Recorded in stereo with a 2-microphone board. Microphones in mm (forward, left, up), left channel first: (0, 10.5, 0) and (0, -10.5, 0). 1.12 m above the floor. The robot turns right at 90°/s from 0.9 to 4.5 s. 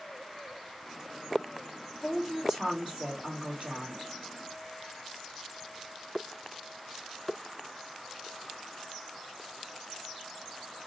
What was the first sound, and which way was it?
A woman speaking, 165° left.